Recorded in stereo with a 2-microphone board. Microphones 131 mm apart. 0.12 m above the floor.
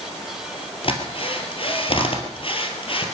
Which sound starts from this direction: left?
A drill, at 0.8 s.